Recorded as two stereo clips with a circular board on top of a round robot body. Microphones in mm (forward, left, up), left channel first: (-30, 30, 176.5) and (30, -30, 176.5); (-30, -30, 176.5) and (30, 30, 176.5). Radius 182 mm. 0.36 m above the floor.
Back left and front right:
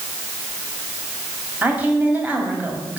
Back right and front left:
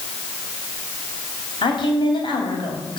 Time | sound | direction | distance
1.6 | a woman speaking | 115° right | 3.5 m